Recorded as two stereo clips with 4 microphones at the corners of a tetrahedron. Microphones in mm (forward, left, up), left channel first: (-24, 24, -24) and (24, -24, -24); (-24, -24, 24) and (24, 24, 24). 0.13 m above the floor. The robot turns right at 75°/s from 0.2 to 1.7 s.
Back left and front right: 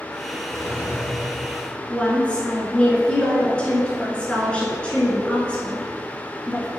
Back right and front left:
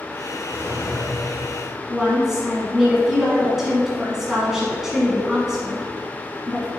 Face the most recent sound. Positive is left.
turn(degrees=115)